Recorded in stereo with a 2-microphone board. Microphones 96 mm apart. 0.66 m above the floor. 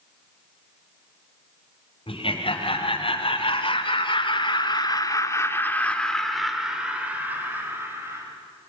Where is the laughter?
75° left (ahead or behind), 4 m; by 8.2 s 25° right (ahead or behind), 3.5 m.